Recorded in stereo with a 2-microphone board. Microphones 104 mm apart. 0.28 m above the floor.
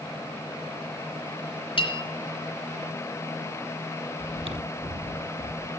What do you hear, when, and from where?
1.8 s a bell: 60° left (ahead or behind), 3.5 m
4.2 s chewing: 65° right (ahead or behind), 1.0 m